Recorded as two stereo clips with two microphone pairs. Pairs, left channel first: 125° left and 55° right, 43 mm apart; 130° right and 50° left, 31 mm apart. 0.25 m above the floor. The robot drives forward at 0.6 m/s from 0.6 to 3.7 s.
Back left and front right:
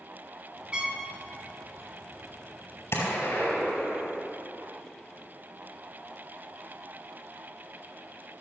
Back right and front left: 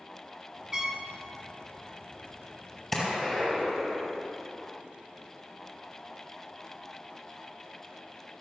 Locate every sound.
0.7 s a trumpet: 5° right, 1.5 m
2.9 s a gunshot: 145° left, 4.5 m; by 4.3 s 150° left, 4.5 m